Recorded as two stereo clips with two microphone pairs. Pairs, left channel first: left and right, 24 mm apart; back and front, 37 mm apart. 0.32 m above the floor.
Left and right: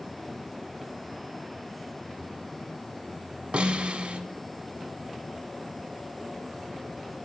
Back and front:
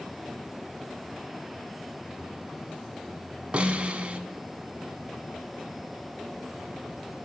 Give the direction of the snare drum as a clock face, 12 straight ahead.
2 o'clock.